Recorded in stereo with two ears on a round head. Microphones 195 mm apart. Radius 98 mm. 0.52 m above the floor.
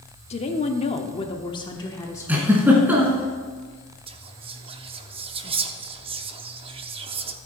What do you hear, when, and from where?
0.3 s a woman speaking: 30° left (ahead or behind), 0.9 m; by 2.5 s 10° left (ahead or behind), 1.2 m
2.3 s a giggle: 10° right (ahead or behind), 2 m
4.1 s whispering: 25° right (ahead or behind), 0.7 m